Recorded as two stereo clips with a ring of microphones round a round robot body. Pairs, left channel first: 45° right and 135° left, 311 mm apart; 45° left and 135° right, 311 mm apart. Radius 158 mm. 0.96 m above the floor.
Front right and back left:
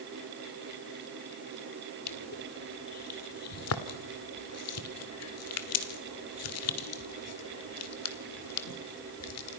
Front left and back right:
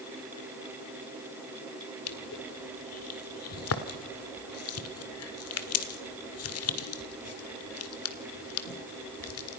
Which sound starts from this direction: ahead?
Crushing, at 2.1 s.